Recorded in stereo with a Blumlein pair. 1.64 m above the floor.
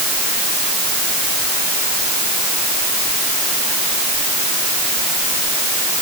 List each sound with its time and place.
Only background noise.